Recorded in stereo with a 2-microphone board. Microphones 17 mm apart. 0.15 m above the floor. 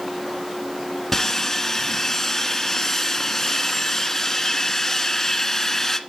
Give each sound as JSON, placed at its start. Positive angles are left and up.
{"t": 1.1, "sound": "sawing", "side_deg": 15, "distance_m": 1.2}